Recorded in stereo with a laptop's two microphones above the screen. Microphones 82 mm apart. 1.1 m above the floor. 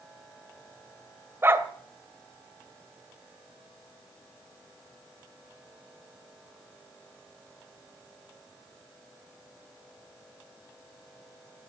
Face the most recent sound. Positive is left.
turn(degrees=-30)  # may be behind; listen again after turning